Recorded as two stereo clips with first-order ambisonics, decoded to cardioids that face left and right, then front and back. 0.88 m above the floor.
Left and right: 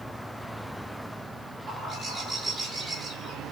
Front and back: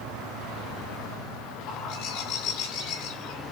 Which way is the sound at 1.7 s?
25° right.